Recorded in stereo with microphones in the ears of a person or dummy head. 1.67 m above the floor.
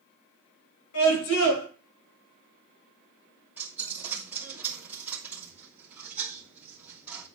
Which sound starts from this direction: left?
A scream, at 0.9 s.